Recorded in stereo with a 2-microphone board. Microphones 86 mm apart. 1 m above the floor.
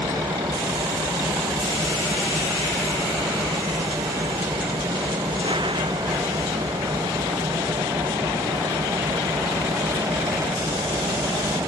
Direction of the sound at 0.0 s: 70° right (ahead or behind).